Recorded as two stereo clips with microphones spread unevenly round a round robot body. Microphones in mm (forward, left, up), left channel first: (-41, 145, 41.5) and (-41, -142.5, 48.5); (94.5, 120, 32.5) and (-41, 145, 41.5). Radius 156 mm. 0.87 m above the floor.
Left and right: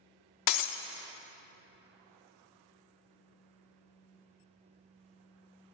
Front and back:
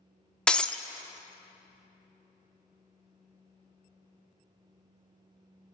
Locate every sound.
0.5 s breaking glass: 75° left, 0.6 m